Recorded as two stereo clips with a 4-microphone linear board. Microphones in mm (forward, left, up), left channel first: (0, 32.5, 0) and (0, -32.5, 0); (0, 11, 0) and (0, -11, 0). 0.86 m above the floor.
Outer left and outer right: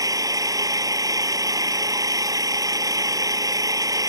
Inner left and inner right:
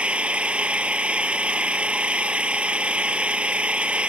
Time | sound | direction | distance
0.0 | an engine running | 65° right (ahead or behind) | ?